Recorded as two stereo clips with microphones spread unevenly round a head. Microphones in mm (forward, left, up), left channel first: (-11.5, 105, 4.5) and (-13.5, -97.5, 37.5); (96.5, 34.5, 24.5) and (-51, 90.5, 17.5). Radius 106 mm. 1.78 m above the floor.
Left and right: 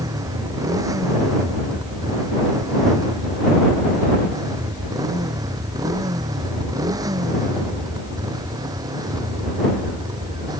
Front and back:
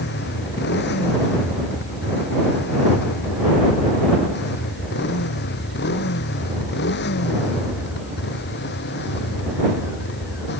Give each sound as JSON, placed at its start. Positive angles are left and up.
{"t": 0.0, "sound": "a motorcycle", "azimuth_deg": -15}